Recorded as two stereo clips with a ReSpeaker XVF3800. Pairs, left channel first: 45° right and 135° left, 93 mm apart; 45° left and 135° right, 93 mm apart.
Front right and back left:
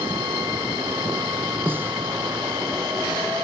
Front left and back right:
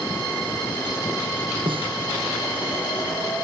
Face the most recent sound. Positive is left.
turn(degrees=-155)